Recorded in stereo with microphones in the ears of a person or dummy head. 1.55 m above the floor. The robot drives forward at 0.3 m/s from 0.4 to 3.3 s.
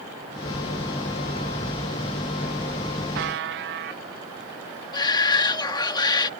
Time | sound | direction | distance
3.1 | a buzzer | 60° right (ahead or behind) | ?
4.9 | a shout | 20° left (ahead or behind) | ?